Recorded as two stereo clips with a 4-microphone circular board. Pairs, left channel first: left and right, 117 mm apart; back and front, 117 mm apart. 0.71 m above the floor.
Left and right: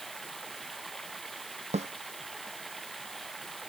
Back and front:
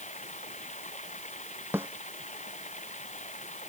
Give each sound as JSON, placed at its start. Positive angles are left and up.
{"t": 0.0, "sound": "running water", "azimuth_deg": 180}
{"t": 1.7, "sound": "a snare drum", "azimuth_deg": -70}